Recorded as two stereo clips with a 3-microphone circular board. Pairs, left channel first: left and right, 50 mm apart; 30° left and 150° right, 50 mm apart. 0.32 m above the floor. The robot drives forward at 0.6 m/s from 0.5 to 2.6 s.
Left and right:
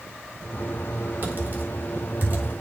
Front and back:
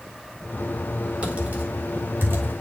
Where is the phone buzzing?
No phone buzzing in this recording.